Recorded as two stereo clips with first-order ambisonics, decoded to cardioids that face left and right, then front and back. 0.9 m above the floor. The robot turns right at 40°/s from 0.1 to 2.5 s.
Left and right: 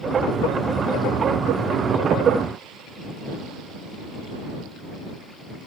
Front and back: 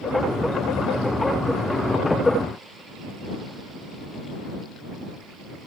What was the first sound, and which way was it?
Only background noise.